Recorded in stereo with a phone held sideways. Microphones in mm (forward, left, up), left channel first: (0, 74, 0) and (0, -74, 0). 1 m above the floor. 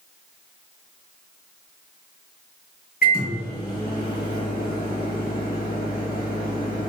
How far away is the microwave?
About 1.1 m.